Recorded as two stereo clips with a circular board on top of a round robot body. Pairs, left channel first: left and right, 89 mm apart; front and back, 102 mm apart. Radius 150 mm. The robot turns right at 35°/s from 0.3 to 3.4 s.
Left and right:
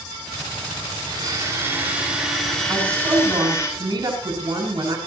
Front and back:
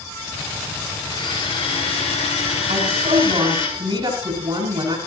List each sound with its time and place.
1.1 s a blender: 50° right, 5.5 m; by 3.7 s 30° left, 5.5 m
2.7 s a woman speaking: 160° right, 7 m; by 5.0 s 135° right, 7 m